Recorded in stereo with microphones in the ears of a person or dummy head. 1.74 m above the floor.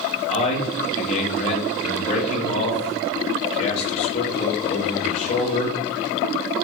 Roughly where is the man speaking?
Left.